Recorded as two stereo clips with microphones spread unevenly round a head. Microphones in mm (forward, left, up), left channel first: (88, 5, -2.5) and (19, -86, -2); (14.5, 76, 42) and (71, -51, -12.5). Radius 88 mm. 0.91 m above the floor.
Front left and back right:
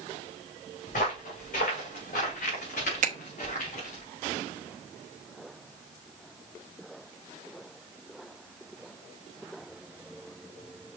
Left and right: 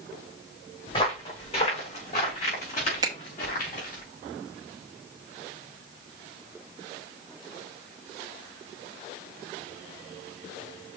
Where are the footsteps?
70° left, 3.5 m; by 4.0 s 95° left, 4.5 m.